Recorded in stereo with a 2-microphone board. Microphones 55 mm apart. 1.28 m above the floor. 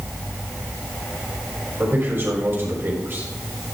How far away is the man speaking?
About 5 m.